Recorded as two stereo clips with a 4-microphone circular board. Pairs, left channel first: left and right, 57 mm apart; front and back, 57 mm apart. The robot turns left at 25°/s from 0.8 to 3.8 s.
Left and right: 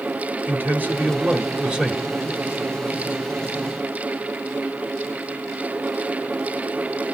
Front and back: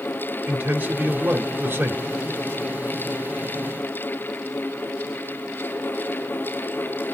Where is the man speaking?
135° right, 1.6 m; by 2.1 s 165° right, 1.6 m.